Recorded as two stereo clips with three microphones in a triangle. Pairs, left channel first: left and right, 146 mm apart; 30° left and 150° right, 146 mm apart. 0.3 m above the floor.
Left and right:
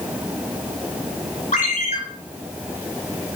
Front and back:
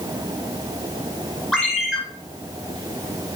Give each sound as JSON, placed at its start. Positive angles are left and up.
{"t": 1.5, "sound": "a ringtone", "azimuth_deg": 120, "distance_m": 3.0}